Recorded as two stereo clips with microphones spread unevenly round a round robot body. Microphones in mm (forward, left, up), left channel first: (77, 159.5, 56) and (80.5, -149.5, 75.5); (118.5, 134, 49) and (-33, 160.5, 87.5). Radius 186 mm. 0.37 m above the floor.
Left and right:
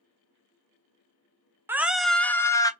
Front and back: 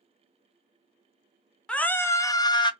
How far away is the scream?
About 0.8 m.